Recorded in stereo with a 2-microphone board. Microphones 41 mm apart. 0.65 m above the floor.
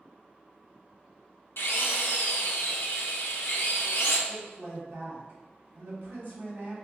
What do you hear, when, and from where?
1.6 s a drill: 75° left (ahead or behind), 0.6 m
4.3 s a woman speaking: 55° right (ahead or behind), 1.5 m